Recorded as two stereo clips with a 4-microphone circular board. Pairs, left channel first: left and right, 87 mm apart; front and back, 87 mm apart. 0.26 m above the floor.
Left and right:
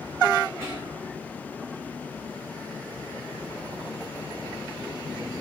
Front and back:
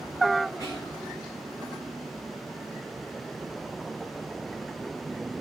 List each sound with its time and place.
0.6 s whispering: 15° right, 1.9 m